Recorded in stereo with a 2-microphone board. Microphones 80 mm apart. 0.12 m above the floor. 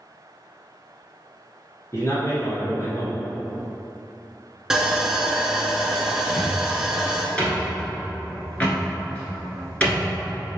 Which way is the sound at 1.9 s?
40° left (ahead or behind).